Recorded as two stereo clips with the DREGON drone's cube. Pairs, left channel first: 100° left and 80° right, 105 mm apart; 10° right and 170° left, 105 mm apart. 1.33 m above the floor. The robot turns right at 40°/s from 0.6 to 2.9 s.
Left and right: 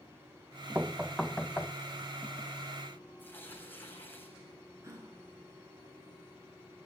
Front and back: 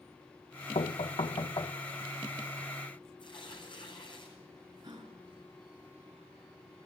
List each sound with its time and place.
0.8 s knocking: 5° right, 0.8 m; by 1.8 s 35° left, 0.8 m
3.2 s tearing paper: 30° left, 7.5 m
4.8 s a gasp: 140° right, 6 m